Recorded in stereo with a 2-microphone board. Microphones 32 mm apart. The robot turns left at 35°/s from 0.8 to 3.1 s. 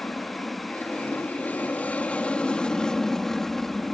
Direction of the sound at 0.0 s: 95° left.